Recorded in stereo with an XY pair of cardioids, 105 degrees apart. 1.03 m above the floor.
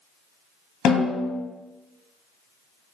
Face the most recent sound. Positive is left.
turn(degrees=65)